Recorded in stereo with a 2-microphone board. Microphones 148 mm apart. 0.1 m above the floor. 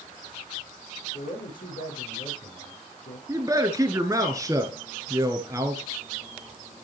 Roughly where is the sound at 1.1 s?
Left.